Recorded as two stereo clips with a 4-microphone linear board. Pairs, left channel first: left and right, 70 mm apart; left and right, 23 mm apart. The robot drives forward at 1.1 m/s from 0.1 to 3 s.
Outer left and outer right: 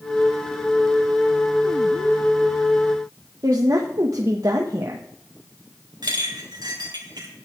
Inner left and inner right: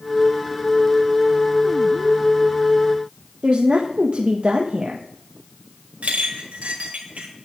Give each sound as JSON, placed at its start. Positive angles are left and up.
{"t": 3.4, "sound": "a woman speaking", "side_deg": -55, "distance_m": 1.4}
{"t": 6.0, "sound": "a clink", "side_deg": -85, "distance_m": 3.5}